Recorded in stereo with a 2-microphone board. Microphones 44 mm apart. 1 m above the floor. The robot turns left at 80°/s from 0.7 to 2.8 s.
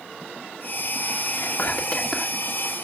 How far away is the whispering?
About 2.5 m.